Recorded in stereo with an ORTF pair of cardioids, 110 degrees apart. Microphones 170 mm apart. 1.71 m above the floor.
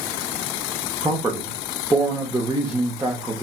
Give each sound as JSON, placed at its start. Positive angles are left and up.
{"t": 1.0, "sound": "a man speaking", "azimuth_deg": -15, "distance_m": 0.8}